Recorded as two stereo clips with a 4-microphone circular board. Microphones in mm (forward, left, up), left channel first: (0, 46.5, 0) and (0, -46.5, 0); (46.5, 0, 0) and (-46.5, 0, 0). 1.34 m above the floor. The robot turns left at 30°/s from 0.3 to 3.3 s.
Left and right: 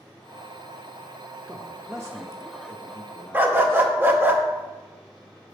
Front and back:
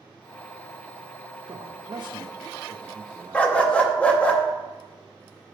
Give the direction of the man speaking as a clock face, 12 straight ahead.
5 o'clock.